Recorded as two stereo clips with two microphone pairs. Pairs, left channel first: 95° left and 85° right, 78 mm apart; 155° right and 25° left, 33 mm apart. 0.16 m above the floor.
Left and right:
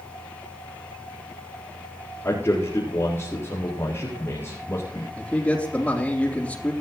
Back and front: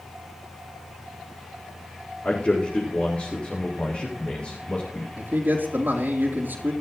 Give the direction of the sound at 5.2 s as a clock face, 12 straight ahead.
11 o'clock.